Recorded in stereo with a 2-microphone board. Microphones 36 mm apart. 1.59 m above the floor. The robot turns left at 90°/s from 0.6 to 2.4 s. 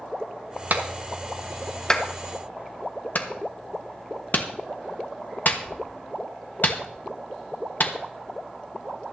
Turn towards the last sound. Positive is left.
turn(degrees=55)  # may be behind; listen again after turning